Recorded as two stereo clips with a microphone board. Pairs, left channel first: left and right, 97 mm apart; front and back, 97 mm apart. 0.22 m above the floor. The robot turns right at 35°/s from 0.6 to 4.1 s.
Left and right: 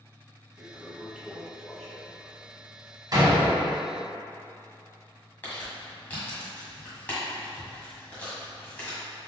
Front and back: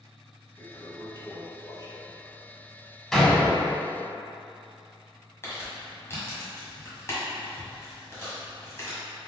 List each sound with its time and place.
0.6 s a toilet flushing: 40° right, 0.9 m; by 4.1 s 85° left, 0.9 m
3.1 s a door slam: 85° right, 1.0 m; by 3.7 s 60° right, 1.0 m
5.4 s crumpling: 35° left, 1.6 m